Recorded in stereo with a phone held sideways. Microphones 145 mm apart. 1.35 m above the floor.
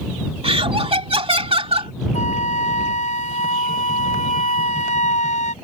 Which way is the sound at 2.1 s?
55° left (ahead or behind).